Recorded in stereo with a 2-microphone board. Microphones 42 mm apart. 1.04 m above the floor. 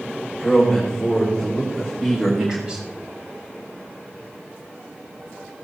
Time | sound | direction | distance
0.3 | a man speaking | 5° left (ahead or behind) | 4 m